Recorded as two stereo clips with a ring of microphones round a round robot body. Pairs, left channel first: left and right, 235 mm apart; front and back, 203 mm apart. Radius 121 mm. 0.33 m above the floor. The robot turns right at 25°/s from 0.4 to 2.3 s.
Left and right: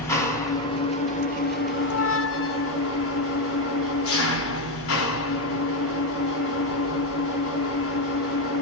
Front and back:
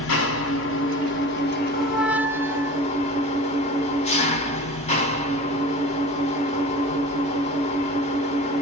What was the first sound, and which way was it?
An engine running, 10° left.